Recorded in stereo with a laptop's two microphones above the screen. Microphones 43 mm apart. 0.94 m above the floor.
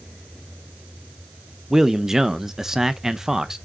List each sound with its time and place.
1.7 s a man speaking: 10° right (ahead or behind), 0.6 m